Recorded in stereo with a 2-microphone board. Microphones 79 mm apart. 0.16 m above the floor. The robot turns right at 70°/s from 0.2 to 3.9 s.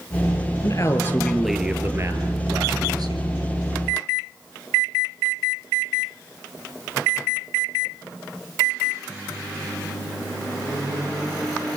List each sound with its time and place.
0.6 s a man speaking: 120° left, 3.5 m; by 3.3 s 55° right, 3.5 m